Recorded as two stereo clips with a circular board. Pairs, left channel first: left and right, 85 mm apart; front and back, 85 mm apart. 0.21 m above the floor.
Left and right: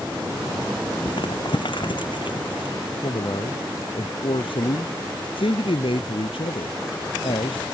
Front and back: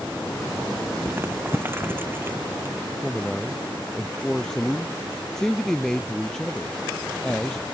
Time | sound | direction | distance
1.1 | crumpling | 115° left | ?
3.0 | a man speaking | 85° left | ?